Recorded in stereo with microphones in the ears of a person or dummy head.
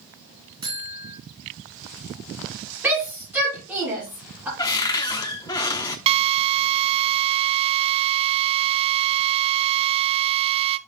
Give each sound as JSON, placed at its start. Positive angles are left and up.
{"t": 0.6, "sound": "a buzzer", "side_deg": -25, "distance_m": 3.0}
{"t": 2.8, "sound": "a shout", "side_deg": -10, "distance_m": 7.5}
{"t": 4.6, "sound": "a cupboard door", "side_deg": 20, "distance_m": 0.9}
{"t": 6.1, "sound": "a drill", "side_deg": -30, "distance_m": 0.7}